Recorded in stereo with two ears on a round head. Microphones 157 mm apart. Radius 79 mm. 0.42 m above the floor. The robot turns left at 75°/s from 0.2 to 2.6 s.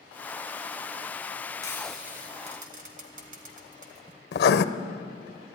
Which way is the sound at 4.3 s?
70° left (ahead or behind).